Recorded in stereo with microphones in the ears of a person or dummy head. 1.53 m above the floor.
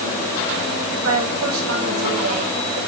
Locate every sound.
0.9 s a woman speaking: 80° right, 7.5 m